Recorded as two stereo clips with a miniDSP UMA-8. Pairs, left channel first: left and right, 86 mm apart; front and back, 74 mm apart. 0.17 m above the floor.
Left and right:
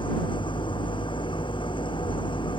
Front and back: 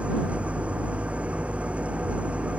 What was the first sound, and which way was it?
An engine running, 105° left.